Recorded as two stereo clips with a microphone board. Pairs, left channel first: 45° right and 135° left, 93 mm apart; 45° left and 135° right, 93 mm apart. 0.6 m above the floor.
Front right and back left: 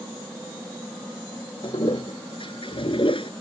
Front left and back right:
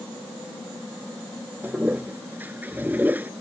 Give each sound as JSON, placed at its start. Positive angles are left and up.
{"t": 1.6, "sound": "a toilet flushing", "azimuth_deg": -65}